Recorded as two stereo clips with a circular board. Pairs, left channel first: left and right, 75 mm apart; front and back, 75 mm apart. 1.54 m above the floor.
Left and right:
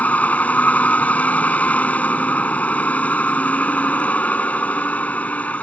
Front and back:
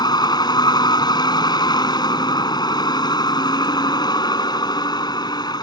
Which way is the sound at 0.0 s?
20° left.